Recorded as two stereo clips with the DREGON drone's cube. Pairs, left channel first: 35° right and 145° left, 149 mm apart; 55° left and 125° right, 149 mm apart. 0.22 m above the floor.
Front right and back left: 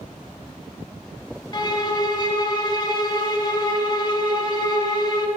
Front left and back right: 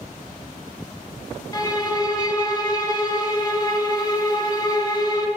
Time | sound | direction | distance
1.5 | a violin | 10° left | 0.6 m